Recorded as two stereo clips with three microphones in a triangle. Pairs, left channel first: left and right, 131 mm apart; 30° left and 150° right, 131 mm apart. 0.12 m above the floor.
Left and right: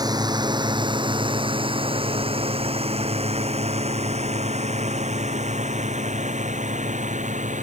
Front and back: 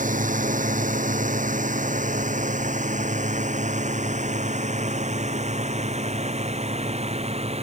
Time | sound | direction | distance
0.0 | a drone | 150° right | ?